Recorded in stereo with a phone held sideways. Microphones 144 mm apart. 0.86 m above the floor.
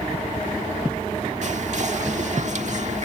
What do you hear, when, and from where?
1.4 s whispering: 55° right (ahead or behind)